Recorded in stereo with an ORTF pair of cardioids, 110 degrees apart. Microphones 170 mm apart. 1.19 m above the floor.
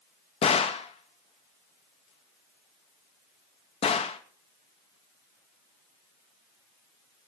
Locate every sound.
0.4 s a gunshot: 40° left, 2 m